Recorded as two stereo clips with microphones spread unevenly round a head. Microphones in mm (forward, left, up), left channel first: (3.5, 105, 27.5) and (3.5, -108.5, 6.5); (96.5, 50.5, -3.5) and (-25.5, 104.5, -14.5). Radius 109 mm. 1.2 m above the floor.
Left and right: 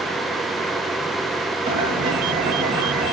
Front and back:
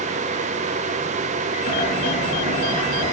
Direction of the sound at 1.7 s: 15° right.